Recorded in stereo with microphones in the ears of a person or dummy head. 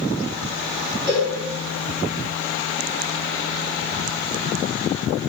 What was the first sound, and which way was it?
A cowbell, 15° right (ahead or behind).